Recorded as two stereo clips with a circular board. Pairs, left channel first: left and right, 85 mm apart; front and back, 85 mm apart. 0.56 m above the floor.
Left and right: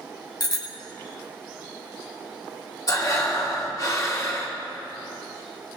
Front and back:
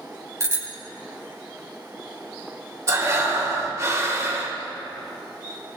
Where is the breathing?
130° left, 2 m.